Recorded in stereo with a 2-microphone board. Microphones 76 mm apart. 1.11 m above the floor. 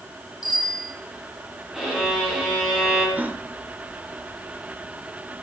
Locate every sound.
0.4 s a bicycle bell: 65° left (ahead or behind), 8 m
1.7 s a violin: 5° right (ahead or behind), 6 m
3.2 s a gasp: 20° right (ahead or behind), 1.2 m